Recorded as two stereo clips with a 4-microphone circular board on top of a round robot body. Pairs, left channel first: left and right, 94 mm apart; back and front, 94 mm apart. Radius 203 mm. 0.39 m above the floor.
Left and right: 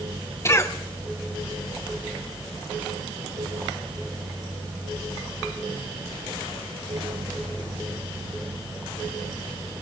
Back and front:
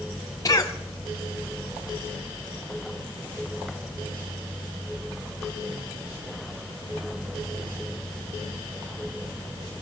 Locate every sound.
0.5 s a cough: 140° left, 1.6 m